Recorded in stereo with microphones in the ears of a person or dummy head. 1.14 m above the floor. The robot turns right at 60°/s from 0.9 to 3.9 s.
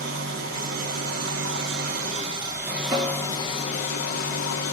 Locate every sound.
0.0 s an engine running: 120° right, 2.5 m; by 4.7 s 60° left, 2.5 m
2.9 s a snare drum: 25° right (ahead or behind), 2.5 m; by 3.3 s centre (ahead or behind), 2.5 m